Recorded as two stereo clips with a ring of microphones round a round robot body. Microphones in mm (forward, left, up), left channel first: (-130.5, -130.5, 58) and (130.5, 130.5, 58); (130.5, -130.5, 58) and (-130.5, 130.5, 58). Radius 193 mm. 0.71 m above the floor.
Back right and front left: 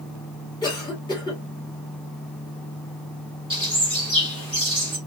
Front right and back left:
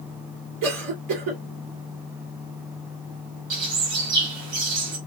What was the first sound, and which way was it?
A cough, 150° left.